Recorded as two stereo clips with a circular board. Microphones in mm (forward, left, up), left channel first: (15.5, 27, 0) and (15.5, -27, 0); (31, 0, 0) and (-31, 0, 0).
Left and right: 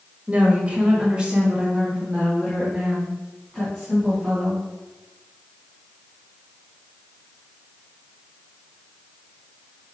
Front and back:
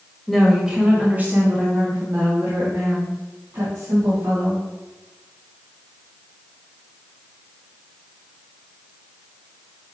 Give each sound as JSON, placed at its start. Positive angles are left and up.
{"t": 0.3, "sound": "a woman speaking", "azimuth_deg": -85, "distance_m": 1.1}